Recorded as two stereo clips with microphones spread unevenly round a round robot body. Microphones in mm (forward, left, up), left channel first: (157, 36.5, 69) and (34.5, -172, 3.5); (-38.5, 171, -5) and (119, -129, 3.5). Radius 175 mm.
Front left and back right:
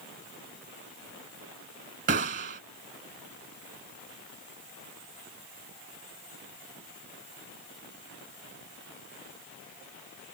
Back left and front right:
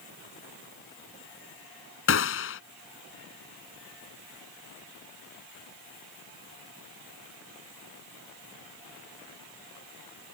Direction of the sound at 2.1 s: 175° left.